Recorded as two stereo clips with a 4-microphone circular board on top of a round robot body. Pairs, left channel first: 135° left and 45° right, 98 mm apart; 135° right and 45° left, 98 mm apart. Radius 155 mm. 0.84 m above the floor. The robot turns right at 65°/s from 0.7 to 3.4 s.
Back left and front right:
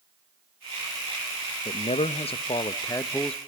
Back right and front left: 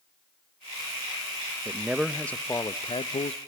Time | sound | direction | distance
1.6 | a man speaking | 105° left | 0.8 m